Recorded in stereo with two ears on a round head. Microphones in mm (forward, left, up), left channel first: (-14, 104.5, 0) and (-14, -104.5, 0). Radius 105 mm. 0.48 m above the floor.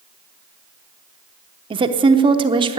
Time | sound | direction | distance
1.7 | a woman speaking | 20° right (ahead or behind) | 0.7 m